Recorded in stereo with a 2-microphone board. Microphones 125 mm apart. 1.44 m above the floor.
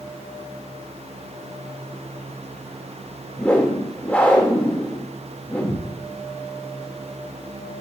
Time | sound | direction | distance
3.4 | a whoosh | 10° left (ahead or behind) | 1.7 m